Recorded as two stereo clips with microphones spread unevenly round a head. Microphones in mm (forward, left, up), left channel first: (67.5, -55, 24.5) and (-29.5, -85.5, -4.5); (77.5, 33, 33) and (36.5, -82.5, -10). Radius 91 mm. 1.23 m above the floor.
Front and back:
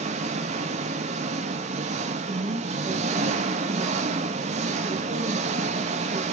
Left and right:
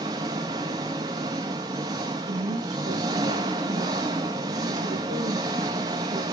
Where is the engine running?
Straight behind, 1.2 m.